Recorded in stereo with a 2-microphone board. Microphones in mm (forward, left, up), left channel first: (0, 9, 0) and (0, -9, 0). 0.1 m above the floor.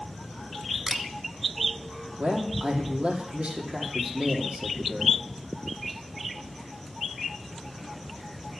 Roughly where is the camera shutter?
Right.